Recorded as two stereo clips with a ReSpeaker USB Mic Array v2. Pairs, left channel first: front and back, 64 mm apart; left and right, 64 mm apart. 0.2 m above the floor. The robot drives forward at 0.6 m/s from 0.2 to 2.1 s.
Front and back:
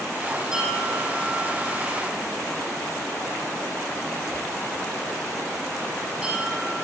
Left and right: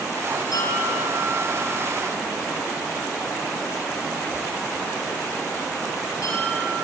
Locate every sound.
0.5 s a bell: 110° left, 9.5 m; by 6.8 s 115° left, 9.5 m